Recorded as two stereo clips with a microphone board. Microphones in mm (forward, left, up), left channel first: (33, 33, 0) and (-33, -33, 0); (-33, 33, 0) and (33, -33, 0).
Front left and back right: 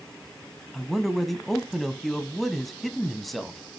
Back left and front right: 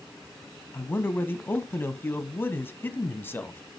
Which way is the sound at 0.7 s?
130° left.